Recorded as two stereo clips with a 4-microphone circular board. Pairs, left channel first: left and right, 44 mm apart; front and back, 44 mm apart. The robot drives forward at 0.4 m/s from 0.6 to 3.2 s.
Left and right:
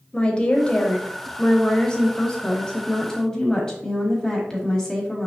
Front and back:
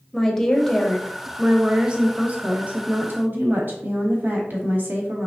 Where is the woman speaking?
70° left, 0.9 m; by 5.3 s 160° left, 1.3 m.